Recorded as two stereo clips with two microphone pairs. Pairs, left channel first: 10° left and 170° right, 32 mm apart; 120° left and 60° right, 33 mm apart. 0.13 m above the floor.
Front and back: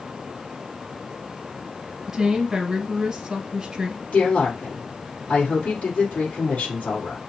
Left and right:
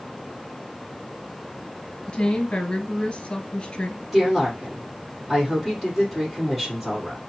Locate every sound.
2.1 s a woman speaking: 135° left, 1.2 m
4.1 s a woman speaking: 30° left, 4 m